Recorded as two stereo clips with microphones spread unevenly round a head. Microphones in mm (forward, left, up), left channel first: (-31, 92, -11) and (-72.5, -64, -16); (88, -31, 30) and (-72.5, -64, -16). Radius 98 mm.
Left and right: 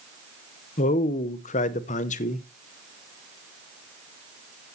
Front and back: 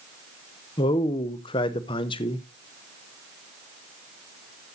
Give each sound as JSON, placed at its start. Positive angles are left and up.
{"t": 0.8, "sound": "a man speaking", "azimuth_deg": 80, "distance_m": 0.8}